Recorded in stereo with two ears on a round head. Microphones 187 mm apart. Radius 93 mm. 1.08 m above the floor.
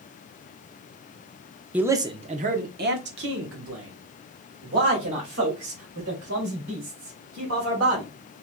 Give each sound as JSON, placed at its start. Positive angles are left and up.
{"t": 1.7, "sound": "a man speaking", "side_deg": -5, "distance_m": 0.7}